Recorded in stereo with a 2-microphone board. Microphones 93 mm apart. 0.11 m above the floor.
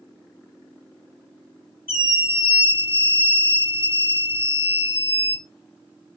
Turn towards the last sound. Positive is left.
turn(degrees=-25)  # may be behind; listen again after turning